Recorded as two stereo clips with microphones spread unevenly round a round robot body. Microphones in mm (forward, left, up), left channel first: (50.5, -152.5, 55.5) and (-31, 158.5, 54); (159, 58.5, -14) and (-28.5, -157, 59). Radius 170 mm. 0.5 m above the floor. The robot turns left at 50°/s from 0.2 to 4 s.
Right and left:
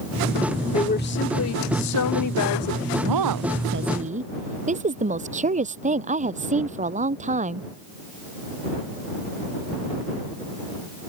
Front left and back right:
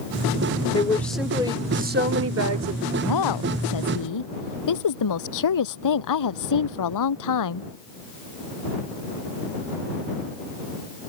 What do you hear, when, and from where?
0.7 s a woman speaking: 10° right; by 2.9 s 120° right
3.0 s a woman speaking: 85° left; by 7.7 s 35° left